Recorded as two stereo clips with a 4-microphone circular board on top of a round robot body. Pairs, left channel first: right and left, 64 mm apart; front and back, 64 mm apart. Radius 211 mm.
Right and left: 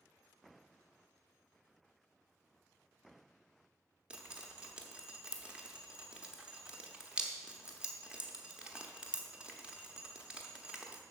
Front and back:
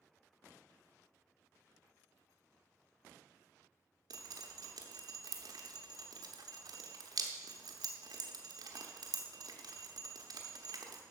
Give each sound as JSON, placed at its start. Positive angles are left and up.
{"t": 4.1, "sound": "dripping", "azimuth_deg": 165, "distance_m": 0.8}